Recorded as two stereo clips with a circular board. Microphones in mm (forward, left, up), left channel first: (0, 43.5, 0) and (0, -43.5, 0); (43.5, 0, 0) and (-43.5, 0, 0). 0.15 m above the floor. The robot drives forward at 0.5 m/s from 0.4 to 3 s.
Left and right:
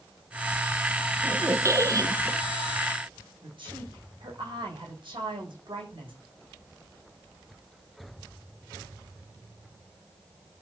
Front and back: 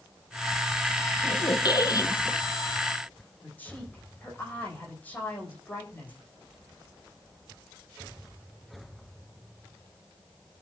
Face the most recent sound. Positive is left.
turn(degrees=-70)